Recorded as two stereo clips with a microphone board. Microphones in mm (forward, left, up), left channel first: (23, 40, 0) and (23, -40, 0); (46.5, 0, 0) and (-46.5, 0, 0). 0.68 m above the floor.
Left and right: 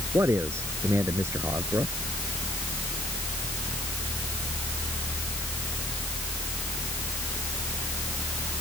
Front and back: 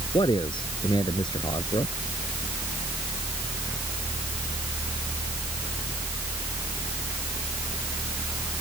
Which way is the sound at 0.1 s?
35° right.